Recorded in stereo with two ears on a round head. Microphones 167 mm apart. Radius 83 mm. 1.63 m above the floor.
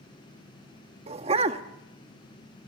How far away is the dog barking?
About 1.3 m.